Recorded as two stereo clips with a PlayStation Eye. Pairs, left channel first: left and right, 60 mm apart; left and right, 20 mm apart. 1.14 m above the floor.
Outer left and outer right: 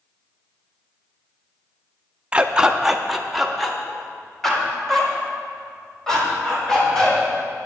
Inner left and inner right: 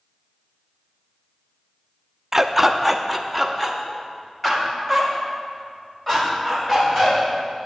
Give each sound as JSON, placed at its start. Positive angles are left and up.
{"t": 2.3, "sound": "a dog barking", "side_deg": -15, "distance_m": 0.5}